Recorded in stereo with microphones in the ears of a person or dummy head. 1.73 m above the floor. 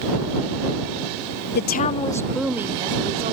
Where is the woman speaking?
50° left (ahead or behind); by 3.3 s 35° right (ahead or behind).